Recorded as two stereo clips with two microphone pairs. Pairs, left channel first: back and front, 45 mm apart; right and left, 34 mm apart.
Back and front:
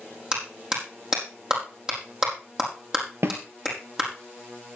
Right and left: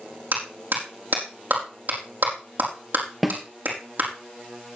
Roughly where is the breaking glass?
I don't hear breaking glass.